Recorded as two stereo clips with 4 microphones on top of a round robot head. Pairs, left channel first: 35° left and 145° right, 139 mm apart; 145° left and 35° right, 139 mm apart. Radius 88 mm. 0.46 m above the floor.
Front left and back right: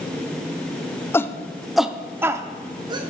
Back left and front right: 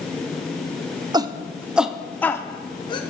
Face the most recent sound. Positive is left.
turn(degrees=175)